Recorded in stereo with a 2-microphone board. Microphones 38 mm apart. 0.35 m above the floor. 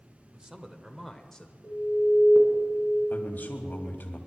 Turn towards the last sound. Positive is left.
turn(degrees=55)  # may be behind; listen again after turning